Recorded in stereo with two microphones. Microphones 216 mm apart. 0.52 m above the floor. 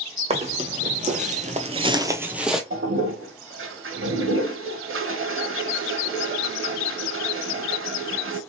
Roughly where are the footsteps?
Right.